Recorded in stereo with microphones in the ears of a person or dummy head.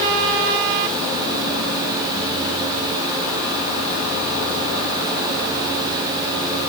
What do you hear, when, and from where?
Only background noise.